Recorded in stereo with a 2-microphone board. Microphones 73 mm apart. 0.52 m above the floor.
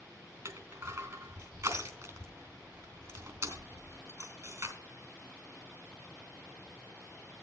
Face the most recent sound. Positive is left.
turn(degrees=-50)  # may be behind; listen again after turning